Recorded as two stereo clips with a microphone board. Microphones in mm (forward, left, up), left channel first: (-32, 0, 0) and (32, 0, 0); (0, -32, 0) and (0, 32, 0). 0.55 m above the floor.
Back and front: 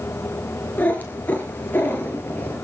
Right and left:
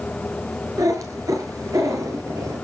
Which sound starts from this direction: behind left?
A cat meowing, at 0.8 s.